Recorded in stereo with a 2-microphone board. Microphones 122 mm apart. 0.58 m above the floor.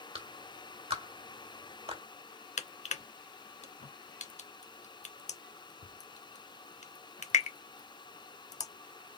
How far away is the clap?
About 1.7 m.